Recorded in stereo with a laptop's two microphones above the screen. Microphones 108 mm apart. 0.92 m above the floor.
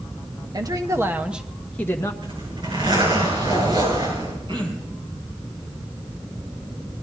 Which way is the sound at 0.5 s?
40° right (ahead or behind).